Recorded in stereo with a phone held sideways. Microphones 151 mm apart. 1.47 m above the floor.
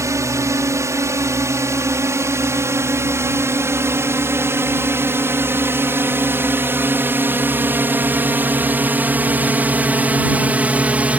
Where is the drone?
20° right (ahead or behind); by 11.2 s 10° right (ahead or behind).